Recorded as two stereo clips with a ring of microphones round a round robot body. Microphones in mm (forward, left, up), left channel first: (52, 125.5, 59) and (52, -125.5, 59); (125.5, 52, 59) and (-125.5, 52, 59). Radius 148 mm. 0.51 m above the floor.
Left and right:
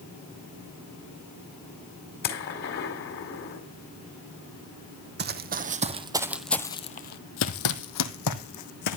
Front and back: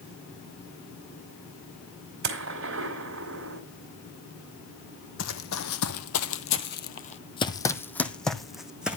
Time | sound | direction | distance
2.2 | a gunshot | 145° left | 1.7 m
5.2 | running footsteps | 45° right | 1.1 m